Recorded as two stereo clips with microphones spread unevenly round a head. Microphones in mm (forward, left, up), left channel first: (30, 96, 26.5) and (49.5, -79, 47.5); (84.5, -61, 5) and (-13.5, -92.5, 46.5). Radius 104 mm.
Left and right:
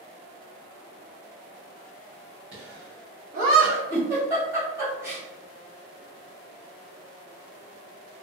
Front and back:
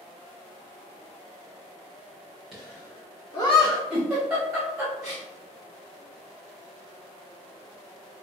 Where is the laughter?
80° right, 1.1 m; by 3.8 s 30° right, 1.6 m.